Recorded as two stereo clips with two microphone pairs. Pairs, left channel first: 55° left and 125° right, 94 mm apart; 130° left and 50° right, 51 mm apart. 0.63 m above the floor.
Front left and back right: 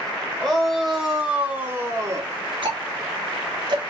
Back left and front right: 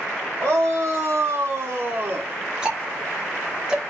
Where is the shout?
35° right, 2.5 m; by 2.3 s 90° right, 1.7 m.